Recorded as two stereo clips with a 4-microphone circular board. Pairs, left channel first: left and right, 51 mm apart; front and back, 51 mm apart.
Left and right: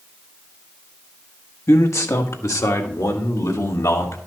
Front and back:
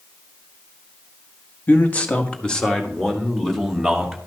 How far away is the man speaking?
About 1.4 m.